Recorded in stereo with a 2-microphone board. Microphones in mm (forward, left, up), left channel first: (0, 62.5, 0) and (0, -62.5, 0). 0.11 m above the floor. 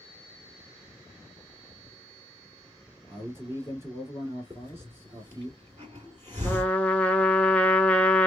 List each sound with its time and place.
3.1 s a man speaking: 20° right (ahead or behind), 1.8 m
4.5 s a hiss: 30° right (ahead or behind), 1.8 m
6.4 s a trumpet: 10° left (ahead or behind), 0.6 m